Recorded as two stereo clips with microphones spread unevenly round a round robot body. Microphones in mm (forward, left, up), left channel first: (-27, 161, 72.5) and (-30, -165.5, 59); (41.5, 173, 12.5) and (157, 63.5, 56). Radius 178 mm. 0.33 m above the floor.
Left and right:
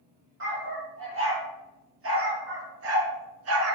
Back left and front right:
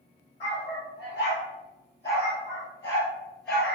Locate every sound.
0.4 s a dog barking: 145° right, 4.5 m; by 3.7 s 135° right, 1.4 m